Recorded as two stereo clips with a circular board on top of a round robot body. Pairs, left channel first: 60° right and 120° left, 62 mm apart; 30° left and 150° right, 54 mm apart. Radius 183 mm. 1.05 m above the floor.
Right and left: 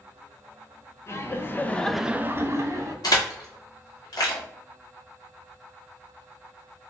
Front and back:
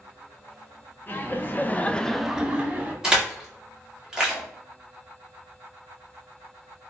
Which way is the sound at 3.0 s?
70° right.